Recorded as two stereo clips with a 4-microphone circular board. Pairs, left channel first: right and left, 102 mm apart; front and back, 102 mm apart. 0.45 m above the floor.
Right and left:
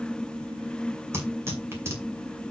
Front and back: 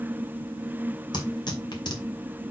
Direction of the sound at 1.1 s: 30° left.